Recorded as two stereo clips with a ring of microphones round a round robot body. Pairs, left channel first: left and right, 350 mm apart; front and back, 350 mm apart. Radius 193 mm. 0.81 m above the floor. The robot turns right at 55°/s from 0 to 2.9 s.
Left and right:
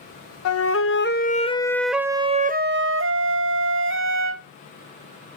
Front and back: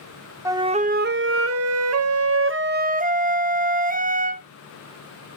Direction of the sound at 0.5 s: 100° left.